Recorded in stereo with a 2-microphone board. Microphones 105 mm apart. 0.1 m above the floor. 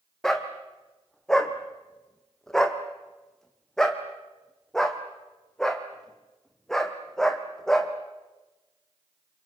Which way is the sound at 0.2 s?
5° left (ahead or behind).